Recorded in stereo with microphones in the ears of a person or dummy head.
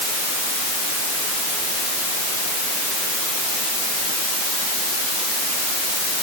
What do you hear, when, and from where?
Only background noise.